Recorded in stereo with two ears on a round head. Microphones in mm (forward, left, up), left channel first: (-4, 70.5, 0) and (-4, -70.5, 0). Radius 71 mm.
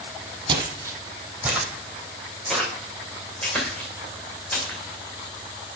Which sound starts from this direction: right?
Footsteps, at 0.5 s.